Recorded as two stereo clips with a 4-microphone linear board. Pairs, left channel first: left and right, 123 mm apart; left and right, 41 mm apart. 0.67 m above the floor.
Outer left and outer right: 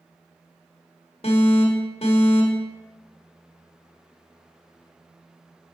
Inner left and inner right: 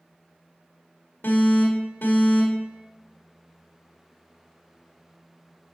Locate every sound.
1.2 s an alarm: 55° left (ahead or behind), 1.5 m